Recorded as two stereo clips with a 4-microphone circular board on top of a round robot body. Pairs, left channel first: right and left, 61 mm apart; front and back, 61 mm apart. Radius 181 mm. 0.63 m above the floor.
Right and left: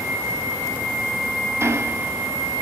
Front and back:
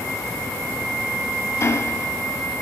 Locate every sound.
1.6 s ticking: 45° left, 2 m